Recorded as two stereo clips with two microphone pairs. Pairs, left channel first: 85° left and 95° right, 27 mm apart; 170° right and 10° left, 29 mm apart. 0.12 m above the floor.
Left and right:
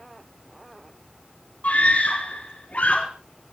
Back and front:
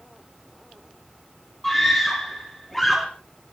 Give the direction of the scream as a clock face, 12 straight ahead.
8 o'clock.